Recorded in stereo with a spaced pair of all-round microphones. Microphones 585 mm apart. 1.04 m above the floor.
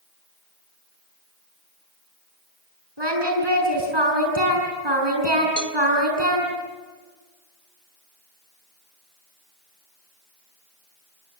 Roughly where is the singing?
Right.